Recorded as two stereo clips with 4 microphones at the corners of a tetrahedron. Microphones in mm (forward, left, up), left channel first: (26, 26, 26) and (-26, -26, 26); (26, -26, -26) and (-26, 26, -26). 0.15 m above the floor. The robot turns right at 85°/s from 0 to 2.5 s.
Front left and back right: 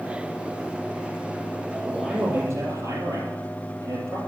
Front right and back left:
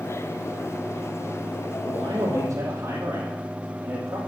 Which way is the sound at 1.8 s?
135° left.